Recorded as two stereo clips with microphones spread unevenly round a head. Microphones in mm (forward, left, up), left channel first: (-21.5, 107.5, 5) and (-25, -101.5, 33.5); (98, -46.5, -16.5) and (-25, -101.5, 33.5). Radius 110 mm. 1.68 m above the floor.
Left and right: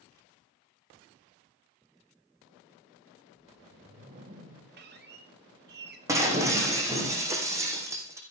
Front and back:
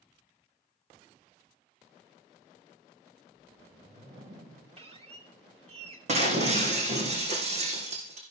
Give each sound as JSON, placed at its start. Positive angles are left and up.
{"t": 3.3, "sound": "a whoosh", "azimuth_deg": -145, "distance_m": 3.0}
{"t": 4.8, "sound": "a squeak", "azimuth_deg": -125, "distance_m": 2.5}
{"t": 6.1, "sound": "breaking glass", "azimuth_deg": -160, "distance_m": 4.0}